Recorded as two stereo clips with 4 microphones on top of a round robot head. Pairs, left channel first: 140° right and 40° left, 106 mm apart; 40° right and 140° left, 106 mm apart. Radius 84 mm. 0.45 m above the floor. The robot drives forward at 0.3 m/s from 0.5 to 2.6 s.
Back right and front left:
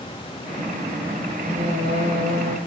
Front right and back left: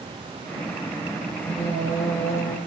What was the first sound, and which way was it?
Singing, 30° left.